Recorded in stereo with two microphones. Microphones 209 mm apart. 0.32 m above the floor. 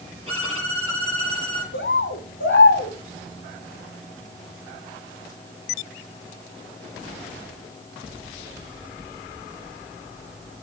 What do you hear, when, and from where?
0.3 s a violin: 25° right (ahead or behind), 6.5 m
1.7 s a bird: 65° left (ahead or behind), 0.9 m